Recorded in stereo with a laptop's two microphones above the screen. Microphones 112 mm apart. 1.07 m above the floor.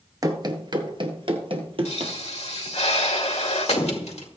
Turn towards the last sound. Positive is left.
turn(degrees=80)